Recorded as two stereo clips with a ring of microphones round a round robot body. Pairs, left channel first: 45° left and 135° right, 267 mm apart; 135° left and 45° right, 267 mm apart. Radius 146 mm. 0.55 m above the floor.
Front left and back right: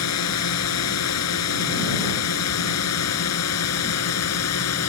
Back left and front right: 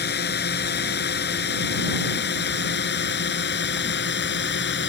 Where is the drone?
80° left.